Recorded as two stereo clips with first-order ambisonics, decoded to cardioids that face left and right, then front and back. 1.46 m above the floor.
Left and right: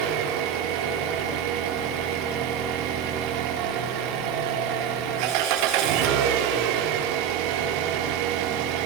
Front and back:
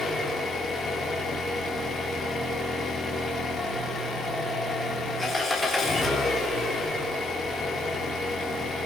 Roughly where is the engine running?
Right.